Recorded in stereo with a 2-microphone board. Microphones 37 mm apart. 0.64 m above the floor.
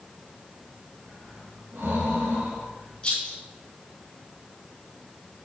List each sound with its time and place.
1.1 s breathing: 70° right (ahead or behind), 3 m
3.0 s a rattle: 25° left (ahead or behind), 3.5 m